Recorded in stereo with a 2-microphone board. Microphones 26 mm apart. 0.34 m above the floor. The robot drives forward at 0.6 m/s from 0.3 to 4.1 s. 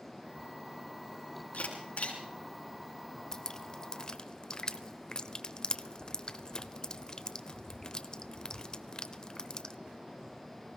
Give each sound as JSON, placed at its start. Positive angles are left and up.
{"t": 1.5, "sound": "a camera shutter", "side_deg": 55, "distance_m": 4.5}
{"t": 3.3, "sound": "dripping", "side_deg": 25, "distance_m": 0.9}